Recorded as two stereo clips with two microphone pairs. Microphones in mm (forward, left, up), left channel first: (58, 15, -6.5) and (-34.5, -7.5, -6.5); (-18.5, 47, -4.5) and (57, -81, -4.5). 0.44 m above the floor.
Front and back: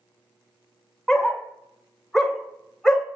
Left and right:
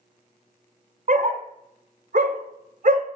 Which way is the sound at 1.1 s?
70° right.